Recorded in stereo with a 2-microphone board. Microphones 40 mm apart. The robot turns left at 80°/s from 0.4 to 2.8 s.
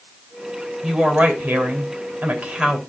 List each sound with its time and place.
0.8 s a woman speaking: 5° right, 2.5 m; by 2.8 s 165° right, 2.5 m